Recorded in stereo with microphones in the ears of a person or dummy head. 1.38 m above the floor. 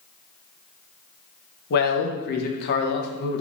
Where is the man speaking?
60° left (ahead or behind), 0.6 m.